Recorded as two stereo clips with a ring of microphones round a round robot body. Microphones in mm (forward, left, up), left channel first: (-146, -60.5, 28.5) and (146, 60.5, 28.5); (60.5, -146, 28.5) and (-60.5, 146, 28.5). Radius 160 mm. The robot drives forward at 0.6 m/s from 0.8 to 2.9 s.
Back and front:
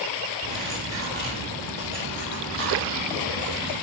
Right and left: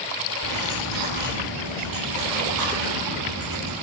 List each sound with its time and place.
0.4 s cutlery clinking: 140° left, 9 m; by 3.7 s 145° left, 10 m